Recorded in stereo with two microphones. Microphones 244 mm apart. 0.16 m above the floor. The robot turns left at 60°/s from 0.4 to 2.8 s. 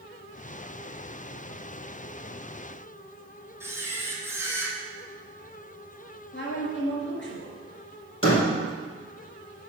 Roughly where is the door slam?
Left.